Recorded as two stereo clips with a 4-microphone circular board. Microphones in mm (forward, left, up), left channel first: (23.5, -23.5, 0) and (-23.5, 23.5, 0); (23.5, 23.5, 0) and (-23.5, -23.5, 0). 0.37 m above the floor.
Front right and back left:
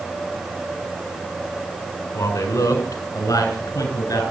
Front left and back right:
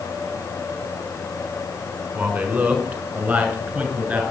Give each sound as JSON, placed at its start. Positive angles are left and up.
{"t": 2.1, "sound": "a man speaking", "azimuth_deg": -60, "distance_m": 4.0}